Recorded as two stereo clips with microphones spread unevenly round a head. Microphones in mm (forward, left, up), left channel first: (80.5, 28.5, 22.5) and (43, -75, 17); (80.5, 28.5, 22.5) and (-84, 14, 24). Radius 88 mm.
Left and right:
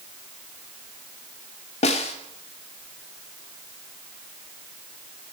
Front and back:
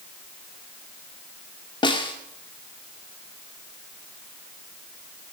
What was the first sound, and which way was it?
A snare drum, 65° left.